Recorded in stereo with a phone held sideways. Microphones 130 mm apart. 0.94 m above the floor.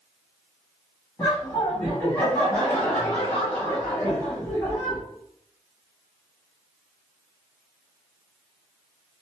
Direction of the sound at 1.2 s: 20° left (ahead or behind).